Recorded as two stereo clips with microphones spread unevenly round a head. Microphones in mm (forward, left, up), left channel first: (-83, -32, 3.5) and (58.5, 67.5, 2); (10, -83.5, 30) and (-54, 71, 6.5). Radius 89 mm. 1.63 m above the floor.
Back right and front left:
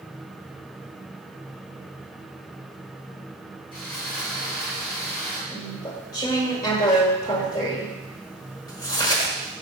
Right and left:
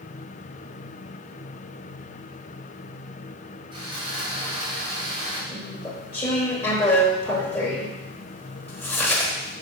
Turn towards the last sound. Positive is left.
turn(degrees=-110)